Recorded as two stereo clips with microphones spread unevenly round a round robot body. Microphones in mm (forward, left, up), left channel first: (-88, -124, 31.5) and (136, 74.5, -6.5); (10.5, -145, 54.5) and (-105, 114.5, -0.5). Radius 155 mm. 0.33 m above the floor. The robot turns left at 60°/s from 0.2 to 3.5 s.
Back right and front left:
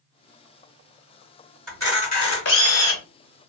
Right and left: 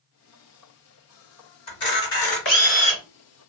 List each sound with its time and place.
1.7 s a camera shutter: 50° right, 2 m; by 3.0 s 130° right, 2 m